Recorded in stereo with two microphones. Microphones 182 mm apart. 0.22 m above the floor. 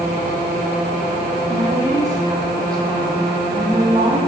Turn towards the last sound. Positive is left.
turn(degrees=-30)  # may be behind; listen again after turning